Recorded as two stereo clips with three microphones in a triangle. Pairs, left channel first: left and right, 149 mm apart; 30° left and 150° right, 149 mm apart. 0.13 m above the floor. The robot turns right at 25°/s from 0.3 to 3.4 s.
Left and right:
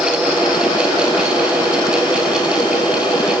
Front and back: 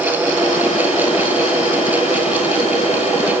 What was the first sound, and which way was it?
Only background noise.